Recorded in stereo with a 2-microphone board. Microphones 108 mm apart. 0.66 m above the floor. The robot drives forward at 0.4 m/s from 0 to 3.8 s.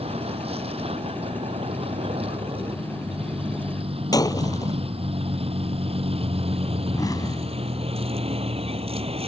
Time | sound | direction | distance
0.0 | a vehicle | 65° right (ahead or behind) | ?
4.1 | breaking glass | 35° left (ahead or behind) | ?
6.9 | an explosion | 35° left (ahead or behind) | ?